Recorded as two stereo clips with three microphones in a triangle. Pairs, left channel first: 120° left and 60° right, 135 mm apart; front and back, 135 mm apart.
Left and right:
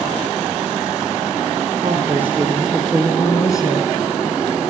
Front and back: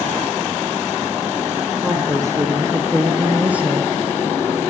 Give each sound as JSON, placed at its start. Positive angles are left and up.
{"t": 1.8, "sound": "a woman speaking", "azimuth_deg": -120, "distance_m": 1.9}